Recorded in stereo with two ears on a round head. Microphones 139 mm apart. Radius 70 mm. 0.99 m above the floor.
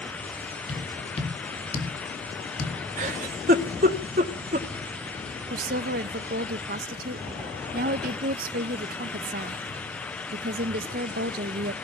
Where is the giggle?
50° right (ahead or behind), 1.6 m.